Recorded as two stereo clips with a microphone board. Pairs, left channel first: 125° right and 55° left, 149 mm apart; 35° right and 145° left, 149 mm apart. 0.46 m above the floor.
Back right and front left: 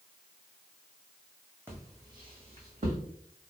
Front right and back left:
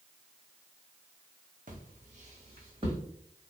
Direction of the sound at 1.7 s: 130° left.